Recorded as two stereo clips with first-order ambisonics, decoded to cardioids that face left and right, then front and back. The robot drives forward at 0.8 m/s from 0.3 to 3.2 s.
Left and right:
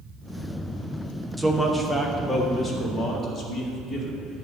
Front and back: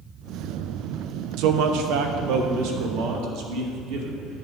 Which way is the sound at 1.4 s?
Straight behind.